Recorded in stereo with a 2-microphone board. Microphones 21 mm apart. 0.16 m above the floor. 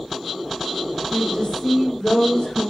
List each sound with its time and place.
1.1 s a woman speaking: 35° left (ahead or behind), 7 m; by 2.7 s 50° left (ahead or behind), 8 m